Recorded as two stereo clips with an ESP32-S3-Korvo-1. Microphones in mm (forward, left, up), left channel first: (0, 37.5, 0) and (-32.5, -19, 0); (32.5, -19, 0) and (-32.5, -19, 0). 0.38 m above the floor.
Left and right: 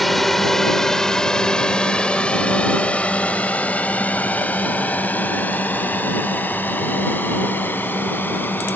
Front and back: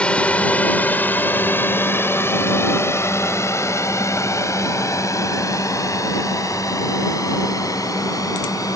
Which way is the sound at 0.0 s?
25° right.